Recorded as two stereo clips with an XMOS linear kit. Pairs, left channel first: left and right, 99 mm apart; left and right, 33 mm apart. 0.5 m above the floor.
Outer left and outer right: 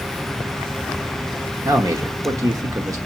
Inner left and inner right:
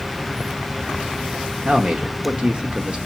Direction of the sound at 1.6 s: 35° right (ahead or behind).